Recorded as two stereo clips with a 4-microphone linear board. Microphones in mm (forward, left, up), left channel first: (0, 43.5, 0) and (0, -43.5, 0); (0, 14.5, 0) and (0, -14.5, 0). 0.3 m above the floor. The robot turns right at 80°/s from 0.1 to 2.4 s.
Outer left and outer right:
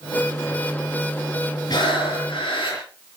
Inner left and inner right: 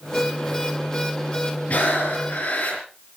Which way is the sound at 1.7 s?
50° left.